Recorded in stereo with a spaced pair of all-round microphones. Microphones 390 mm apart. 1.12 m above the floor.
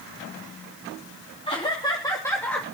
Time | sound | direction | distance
1.5 | laughter | 15° left (ahead or behind) | 3 m